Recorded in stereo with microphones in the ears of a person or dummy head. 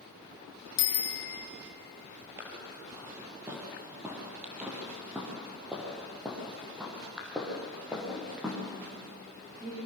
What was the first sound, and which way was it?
A bicycle bell, 70° left (ahead or behind).